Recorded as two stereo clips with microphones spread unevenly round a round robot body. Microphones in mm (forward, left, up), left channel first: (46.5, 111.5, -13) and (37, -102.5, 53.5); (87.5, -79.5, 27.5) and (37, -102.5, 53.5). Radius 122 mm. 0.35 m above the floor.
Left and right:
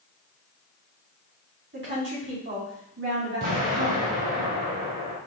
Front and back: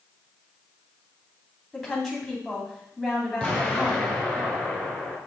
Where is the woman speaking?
55° right, 3 m.